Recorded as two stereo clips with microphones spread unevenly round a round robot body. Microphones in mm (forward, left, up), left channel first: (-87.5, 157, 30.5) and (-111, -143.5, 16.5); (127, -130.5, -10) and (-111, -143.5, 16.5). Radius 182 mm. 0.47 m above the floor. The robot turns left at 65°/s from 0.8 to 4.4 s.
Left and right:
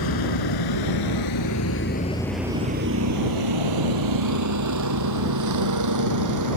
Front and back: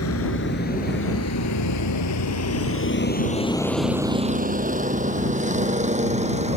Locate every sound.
0.0 s a vehicle: 55° left; by 6.6 s 115° right